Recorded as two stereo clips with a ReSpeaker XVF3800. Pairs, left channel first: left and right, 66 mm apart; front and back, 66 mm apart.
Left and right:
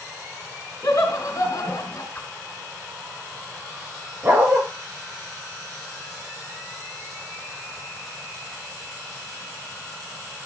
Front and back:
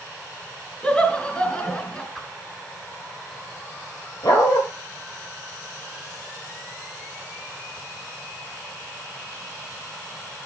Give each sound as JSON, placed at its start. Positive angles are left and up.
{"t": 0.8, "sound": "laughter", "azimuth_deg": 70, "distance_m": 3.0}
{"t": 2.1, "sound": "a whoosh", "azimuth_deg": 80, "distance_m": 1.6}
{"t": 4.2, "sound": "a dog barking", "azimuth_deg": -25, "distance_m": 7.5}